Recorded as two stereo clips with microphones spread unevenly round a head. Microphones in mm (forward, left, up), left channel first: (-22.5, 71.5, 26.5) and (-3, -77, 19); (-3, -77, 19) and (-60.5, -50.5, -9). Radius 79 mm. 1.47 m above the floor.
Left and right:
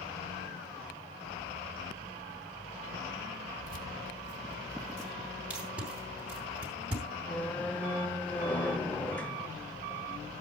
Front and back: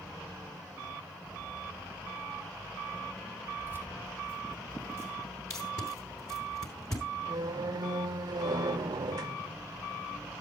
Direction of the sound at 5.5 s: Straight ahead.